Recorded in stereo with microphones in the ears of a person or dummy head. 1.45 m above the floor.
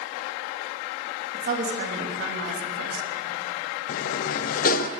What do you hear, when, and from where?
1.3 s a woman speaking: 45° right (ahead or behind), 3 m; by 3.1 s 75° right (ahead or behind), 3 m
3.9 s a sliding door: 45° left (ahead or behind), 0.6 m